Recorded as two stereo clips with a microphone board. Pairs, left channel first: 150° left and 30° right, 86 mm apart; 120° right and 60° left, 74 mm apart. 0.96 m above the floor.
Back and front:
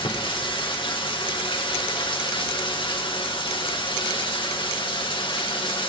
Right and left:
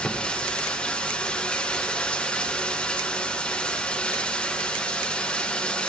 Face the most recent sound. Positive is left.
turn(degrees=165)